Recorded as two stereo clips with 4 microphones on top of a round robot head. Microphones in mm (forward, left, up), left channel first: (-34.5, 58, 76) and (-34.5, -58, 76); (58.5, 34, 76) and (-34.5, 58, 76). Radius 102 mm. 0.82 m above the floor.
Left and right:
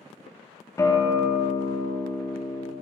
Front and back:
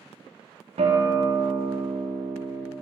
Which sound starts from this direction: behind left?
A guitar, at 0.8 s.